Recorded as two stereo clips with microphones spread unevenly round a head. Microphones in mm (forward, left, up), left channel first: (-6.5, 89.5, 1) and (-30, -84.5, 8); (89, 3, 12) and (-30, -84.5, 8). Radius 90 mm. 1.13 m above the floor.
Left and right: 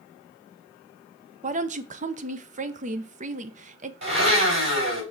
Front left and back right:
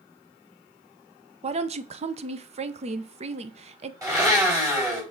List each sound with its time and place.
1.4 s a woman speaking: 130° right, 0.6 m
4.0 s a blender: 75° right, 4.5 m